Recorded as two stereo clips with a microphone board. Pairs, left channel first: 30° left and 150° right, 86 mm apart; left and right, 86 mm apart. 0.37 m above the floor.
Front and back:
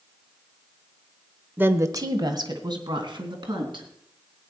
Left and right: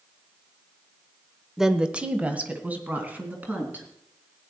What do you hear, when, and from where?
1.6 s a woman speaking: 170° right, 0.8 m; by 3.9 s 160° right, 4 m